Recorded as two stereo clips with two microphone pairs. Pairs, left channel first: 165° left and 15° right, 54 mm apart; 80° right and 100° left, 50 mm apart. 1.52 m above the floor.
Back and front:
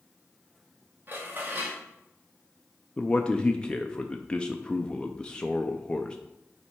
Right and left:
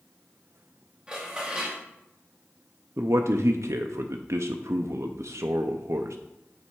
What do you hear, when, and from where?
1.1 s dishes clattering: 30° left, 1.5 m
3.0 s a man speaking: 90° left, 0.5 m